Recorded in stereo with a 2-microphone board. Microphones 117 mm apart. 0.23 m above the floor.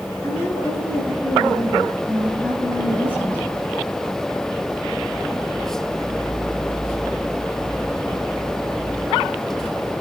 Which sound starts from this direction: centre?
A woman speaking, at 0.2 s.